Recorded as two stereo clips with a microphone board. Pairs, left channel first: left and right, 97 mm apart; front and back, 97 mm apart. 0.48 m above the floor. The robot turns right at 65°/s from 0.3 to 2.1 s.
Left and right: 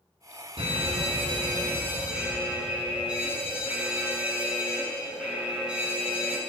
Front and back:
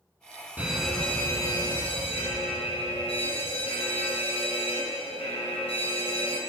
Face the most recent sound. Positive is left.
turn(degrees=-10)